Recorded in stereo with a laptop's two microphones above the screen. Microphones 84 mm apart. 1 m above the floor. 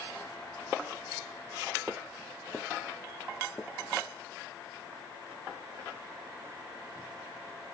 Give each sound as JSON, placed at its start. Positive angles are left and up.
{"t": 1.9, "sound": "footsteps", "side_deg": 5, "distance_m": 1.4}